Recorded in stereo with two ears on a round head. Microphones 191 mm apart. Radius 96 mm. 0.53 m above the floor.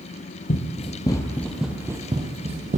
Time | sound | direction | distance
0.5 | running footsteps | 35° left (ahead or behind) | 1.1 m